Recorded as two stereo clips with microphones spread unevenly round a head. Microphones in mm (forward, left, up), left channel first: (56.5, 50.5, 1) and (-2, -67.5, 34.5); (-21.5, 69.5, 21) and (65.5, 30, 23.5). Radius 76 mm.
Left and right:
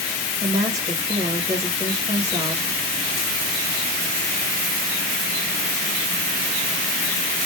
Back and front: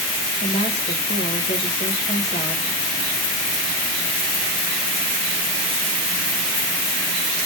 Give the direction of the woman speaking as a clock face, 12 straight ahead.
6 o'clock.